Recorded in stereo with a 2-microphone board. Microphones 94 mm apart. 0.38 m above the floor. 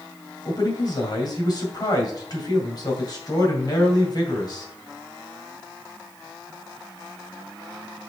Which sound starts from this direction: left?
A man speaking, at 0.5 s.